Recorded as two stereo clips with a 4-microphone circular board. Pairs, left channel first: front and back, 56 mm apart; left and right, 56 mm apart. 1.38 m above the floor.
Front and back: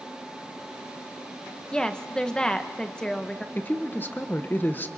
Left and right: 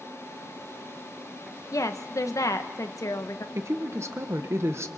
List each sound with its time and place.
1.7 s a woman speaking: 75° left, 1.2 m
3.5 s a woman speaking: 55° right, 1.2 m